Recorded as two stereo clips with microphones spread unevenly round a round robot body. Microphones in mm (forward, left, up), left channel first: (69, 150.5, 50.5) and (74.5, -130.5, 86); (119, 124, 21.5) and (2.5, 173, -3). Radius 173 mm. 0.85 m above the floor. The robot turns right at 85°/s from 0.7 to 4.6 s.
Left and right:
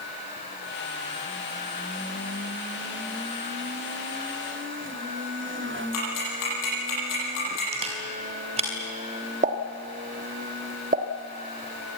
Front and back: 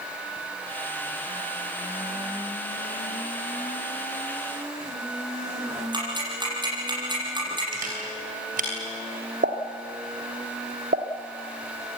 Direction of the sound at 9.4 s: 155° right.